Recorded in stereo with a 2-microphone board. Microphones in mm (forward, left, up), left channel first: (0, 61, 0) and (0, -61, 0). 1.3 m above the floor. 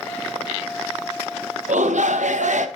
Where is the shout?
80° right, 0.9 m.